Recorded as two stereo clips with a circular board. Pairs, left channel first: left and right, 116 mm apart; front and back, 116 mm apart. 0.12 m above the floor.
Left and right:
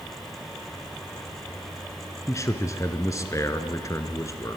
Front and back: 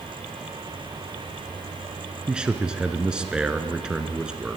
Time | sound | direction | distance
2.3 | a man speaking | 105° left | 1.3 m